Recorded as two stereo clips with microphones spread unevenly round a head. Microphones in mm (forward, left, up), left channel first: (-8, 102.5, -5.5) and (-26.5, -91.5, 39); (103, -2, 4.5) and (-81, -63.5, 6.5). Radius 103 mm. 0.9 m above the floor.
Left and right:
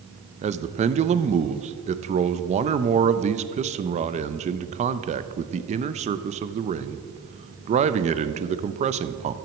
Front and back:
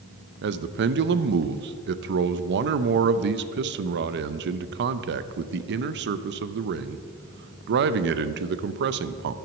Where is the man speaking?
155° right, 0.5 m.